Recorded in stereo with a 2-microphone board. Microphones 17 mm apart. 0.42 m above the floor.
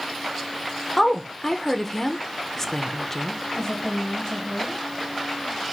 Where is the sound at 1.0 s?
20° left (ahead or behind), 0.8 m.